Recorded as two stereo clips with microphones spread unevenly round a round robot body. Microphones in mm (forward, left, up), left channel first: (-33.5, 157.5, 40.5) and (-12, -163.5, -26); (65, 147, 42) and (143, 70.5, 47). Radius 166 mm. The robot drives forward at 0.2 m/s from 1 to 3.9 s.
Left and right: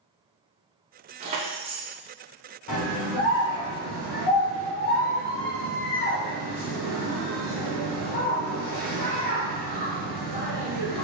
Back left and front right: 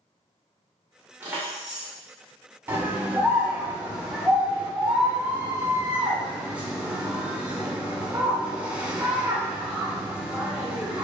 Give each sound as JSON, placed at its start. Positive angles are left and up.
{"t": 1.2, "sound": "keys jangling", "azimuth_deg": -110, "distance_m": 0.6}
{"t": 2.7, "sound": "a scream", "azimuth_deg": 25, "distance_m": 1.4}